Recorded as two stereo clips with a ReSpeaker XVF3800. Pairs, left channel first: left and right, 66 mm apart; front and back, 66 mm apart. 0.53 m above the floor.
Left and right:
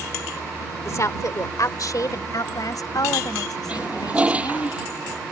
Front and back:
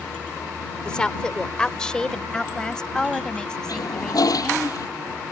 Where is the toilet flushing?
20° right.